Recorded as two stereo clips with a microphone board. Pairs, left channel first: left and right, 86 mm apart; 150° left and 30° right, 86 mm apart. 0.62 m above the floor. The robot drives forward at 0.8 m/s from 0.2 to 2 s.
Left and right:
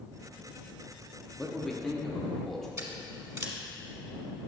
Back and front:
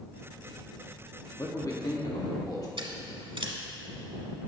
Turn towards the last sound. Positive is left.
turn(degrees=-40)